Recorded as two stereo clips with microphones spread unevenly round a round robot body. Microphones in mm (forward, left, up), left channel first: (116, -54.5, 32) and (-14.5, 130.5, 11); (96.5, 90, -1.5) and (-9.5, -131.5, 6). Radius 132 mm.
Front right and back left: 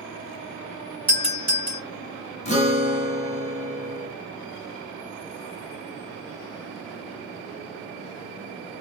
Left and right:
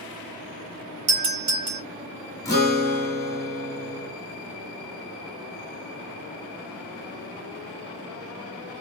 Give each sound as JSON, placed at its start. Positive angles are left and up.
{"t": 1.1, "sound": "a doorbell", "azimuth_deg": -140, "distance_m": 2.5}
{"t": 2.5, "sound": "a guitar", "azimuth_deg": -5, "distance_m": 1.4}